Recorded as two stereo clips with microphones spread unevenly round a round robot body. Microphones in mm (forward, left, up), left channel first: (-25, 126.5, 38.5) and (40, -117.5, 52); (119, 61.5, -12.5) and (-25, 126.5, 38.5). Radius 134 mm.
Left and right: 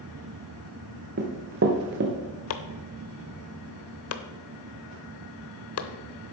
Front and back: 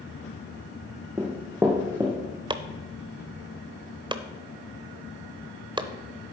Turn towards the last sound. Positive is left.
turn(degrees=85)